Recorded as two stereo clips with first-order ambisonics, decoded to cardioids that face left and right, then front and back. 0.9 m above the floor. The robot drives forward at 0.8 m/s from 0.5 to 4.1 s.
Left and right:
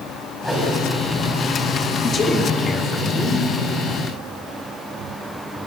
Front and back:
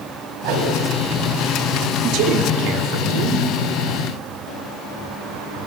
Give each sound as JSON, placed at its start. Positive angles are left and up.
{"t": 0.4, "sound": "a whoosh", "azimuth_deg": 175, "distance_m": 5.0}
{"t": 2.0, "sound": "a man speaking", "azimuth_deg": 155, "distance_m": 2.0}